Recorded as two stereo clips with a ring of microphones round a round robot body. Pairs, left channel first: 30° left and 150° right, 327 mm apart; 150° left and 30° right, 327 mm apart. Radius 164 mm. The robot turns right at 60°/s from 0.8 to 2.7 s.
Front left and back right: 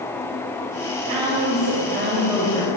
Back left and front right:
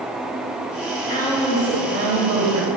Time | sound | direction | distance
0.8 | a woman speaking | 155° right | 3.5 m